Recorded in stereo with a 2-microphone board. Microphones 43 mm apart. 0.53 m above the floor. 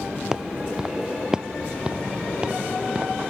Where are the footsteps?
15° right (ahead or behind); by 3.3 s 25° right (ahead or behind).